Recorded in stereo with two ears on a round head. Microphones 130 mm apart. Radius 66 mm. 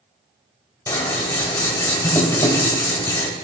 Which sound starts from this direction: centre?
Scissors, at 0.9 s.